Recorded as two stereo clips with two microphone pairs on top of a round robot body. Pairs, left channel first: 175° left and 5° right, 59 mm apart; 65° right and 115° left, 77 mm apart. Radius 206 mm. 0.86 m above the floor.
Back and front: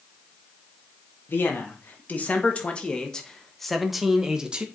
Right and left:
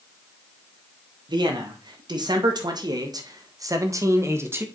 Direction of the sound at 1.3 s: 115° left.